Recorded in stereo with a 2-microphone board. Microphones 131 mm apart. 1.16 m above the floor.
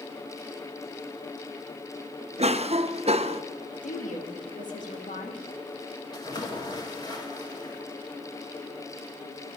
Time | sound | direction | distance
2.4 | a cough | 55° right (ahead or behind) | 0.7 m
3.8 | a woman speaking | 75° left (ahead or behind) | 1.9 m
6.1 | a splash | 35° left (ahead or behind) | 2.5 m